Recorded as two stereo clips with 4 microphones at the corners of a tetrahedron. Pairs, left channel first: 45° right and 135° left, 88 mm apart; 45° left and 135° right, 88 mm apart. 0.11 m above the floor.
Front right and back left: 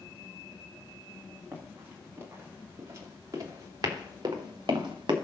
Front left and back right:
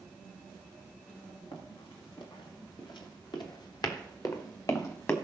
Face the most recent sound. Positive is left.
turn(degrees=105)